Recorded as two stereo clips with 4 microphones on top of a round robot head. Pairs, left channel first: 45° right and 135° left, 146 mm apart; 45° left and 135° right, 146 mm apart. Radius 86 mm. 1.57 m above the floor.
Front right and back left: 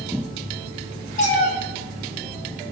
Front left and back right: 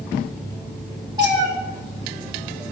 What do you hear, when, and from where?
1.2 s a cat meowing: 75° right, 1.3 m